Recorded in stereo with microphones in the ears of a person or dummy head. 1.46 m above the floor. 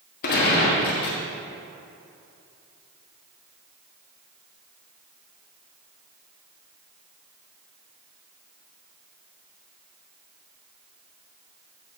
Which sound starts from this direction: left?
A gunshot, at 0.2 s.